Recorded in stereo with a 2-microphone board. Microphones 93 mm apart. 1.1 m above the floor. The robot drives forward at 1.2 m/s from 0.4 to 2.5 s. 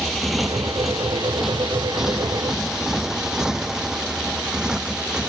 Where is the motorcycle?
Centre (ahead or behind); by 5.3 s 10° right (ahead or behind).